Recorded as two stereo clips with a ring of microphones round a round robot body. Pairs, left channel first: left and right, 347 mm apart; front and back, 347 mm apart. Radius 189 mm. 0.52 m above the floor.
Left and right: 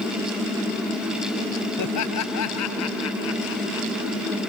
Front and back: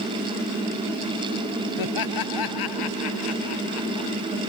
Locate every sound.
1.8 s laughter: 40° left; by 4.1 s 30° left